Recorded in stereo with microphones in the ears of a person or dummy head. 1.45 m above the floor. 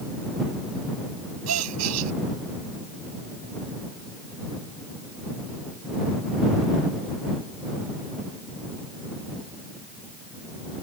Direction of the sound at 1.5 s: 90° right.